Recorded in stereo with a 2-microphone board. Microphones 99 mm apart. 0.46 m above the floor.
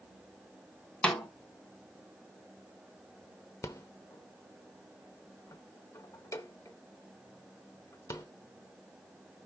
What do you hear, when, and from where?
1.0 s a snare drum: 10° left (ahead or behind), 1.3 m
3.6 s a rattle: 30° left (ahead or behind), 0.9 m